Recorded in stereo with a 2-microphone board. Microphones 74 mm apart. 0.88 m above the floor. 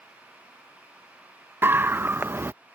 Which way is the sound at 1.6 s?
30° right (ahead or behind).